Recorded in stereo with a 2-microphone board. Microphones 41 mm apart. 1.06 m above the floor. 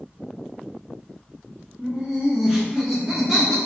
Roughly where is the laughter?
Right.